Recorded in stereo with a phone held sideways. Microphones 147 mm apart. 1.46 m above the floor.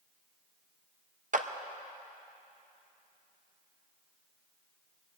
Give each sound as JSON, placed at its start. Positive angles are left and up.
{"t": 1.3, "sound": "a clap", "side_deg": -60, "distance_m": 0.6}